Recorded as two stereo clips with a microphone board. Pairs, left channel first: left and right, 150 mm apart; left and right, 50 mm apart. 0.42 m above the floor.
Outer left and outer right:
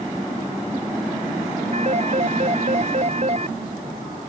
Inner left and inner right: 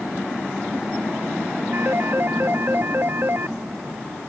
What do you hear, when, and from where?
1.7 s a phone ringing: 45° right (ahead or behind)